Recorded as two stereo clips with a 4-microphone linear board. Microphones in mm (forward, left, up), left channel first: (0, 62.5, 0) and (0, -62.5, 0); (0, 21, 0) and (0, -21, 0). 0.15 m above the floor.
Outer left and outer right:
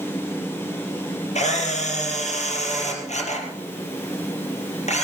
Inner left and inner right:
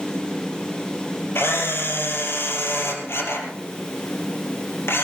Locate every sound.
1.4 s a camera shutter: 65° left (ahead or behind), 4 m